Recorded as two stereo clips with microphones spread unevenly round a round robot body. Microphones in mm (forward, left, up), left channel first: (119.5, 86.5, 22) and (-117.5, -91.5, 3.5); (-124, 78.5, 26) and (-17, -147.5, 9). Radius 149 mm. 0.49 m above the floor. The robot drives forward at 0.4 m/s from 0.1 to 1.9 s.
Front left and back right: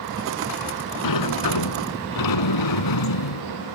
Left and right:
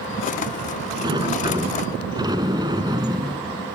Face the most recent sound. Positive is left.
turn(degrees=15)